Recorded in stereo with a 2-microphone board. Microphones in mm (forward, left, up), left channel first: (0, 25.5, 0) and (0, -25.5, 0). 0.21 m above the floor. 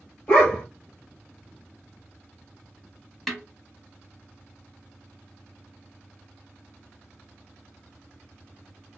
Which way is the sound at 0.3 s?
25° left (ahead or behind).